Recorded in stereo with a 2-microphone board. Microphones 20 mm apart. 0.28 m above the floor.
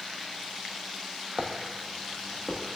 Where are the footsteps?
45° right (ahead or behind), 0.6 m; by 2.6 s 30° right (ahead or behind), 1.2 m.